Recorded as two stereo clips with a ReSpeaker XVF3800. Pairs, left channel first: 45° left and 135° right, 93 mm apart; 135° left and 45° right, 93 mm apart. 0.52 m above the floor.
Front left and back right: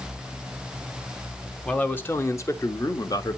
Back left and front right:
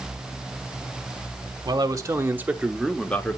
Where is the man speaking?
25° right, 1.2 m; by 3.4 s 75° left, 1.2 m.